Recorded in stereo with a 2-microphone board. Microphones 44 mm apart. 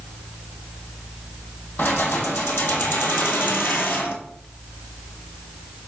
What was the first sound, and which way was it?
Keys jangling, 50° left (ahead or behind).